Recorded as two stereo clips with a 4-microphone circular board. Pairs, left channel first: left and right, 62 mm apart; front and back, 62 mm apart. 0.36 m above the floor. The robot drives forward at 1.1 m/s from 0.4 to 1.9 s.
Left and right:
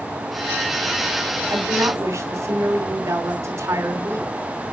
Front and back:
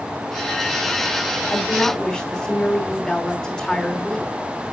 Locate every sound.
1.5 s a woman speaking: 75° right, 2.5 m; by 4.3 s 85° right, 2 m